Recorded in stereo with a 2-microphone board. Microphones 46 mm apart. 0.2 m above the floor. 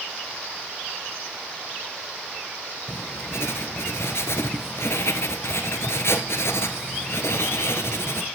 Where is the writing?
75° left (ahead or behind), 1.1 m.